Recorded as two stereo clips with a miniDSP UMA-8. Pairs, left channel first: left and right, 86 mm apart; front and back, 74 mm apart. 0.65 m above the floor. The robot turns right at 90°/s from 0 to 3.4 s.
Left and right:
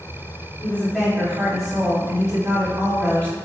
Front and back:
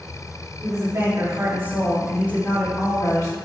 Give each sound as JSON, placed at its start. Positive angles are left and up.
{"t": 0.6, "sound": "a woman speaking", "azimuth_deg": 145, "distance_m": 2.0}